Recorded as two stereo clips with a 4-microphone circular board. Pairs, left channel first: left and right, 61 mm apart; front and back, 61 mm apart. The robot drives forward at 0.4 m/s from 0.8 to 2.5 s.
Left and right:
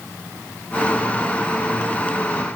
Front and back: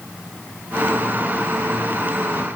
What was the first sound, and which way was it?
Only background noise.